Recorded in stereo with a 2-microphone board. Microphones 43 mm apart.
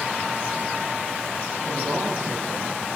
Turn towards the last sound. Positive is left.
turn(degrees=-65)  # may be behind; listen again after turning